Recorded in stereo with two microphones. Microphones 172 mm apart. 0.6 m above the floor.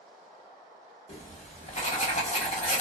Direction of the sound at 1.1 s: 40° left (ahead or behind).